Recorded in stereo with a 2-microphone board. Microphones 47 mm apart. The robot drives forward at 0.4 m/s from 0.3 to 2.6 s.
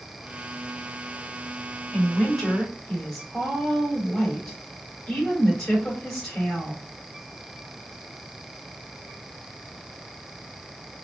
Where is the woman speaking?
10° left (ahead or behind), 2.5 m.